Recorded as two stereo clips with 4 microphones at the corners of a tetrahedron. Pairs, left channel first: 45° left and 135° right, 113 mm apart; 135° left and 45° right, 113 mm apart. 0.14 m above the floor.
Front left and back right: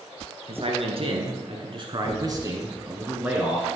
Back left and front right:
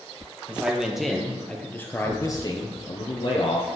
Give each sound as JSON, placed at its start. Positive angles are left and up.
{"t": 0.5, "sound": "a man speaking", "azimuth_deg": -125, "distance_m": 2.0}